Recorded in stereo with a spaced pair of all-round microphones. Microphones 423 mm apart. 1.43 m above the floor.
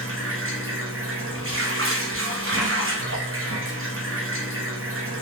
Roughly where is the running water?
Right.